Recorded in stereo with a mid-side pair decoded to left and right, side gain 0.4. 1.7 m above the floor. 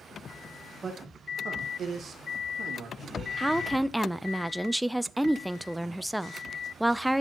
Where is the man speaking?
40° right, 1.8 m; by 3.3 s 70° right, 2.5 m.